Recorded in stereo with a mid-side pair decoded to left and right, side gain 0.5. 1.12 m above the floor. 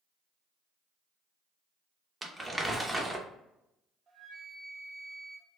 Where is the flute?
40° right, 0.8 m.